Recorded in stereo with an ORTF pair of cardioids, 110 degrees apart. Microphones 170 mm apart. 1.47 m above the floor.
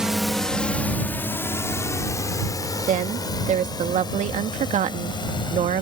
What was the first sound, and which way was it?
A drone, 5° right.